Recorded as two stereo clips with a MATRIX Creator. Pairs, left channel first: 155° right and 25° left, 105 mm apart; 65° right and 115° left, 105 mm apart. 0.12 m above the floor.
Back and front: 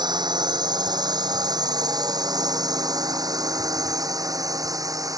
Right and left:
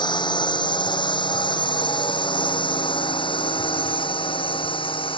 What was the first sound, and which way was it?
A drone, 25° right.